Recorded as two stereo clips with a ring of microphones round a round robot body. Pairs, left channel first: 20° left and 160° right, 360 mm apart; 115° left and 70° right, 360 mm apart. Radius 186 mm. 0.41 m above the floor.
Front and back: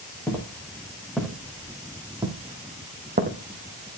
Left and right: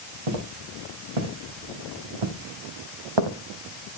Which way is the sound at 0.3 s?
60° right.